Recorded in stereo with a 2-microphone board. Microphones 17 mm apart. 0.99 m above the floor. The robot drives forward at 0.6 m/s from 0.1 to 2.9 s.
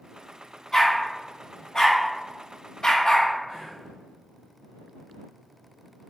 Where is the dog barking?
25° left (ahead or behind), 1.5 m; by 3.3 s 40° left (ahead or behind), 0.9 m.